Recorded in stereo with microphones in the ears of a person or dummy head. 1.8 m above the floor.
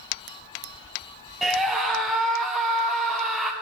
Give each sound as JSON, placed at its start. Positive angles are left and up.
{"t": 1.4, "sound": "a scream", "side_deg": 0, "distance_m": 0.5}